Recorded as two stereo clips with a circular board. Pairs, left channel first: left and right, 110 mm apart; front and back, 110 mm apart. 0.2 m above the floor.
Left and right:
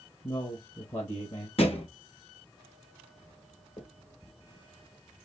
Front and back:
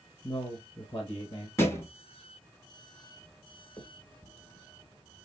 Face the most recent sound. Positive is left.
turn(degrees=65)